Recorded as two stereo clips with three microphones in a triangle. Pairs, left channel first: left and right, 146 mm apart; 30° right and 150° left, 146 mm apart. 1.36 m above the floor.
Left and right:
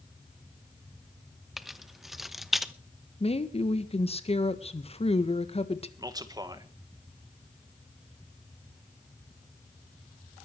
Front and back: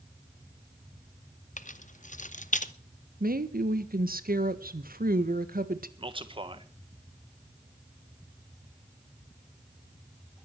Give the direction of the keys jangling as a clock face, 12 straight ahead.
12 o'clock.